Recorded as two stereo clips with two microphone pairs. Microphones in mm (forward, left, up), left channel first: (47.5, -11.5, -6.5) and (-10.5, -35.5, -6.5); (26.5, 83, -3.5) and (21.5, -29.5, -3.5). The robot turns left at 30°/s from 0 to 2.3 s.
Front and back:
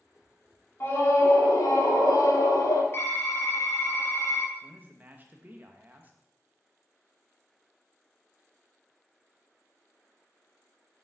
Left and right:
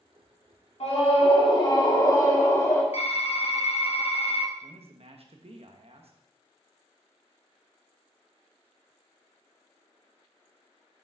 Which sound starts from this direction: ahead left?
A scream, at 0.8 s.